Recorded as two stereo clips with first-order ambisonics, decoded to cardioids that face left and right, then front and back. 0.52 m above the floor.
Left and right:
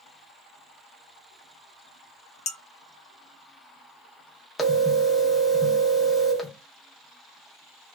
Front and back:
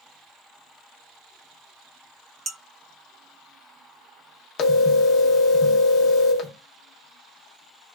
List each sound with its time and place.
2.5 s dishes clattering: 120° left, 0.6 m
4.6 s a phone ringing: 10° left, 0.6 m